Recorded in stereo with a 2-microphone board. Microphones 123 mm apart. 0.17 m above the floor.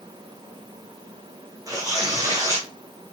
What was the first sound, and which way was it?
Tearing paper, 30° right (ahead or behind).